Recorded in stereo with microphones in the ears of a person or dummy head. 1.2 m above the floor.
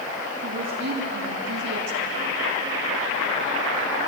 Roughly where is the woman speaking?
Right.